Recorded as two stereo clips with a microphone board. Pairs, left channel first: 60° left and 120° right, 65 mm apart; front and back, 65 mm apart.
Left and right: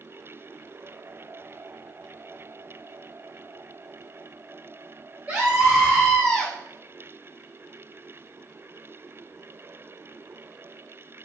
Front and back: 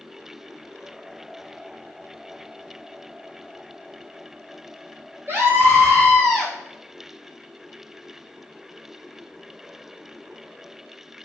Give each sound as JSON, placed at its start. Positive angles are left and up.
{"t": 5.3, "sound": "a scream", "azimuth_deg": -170, "distance_m": 1.6}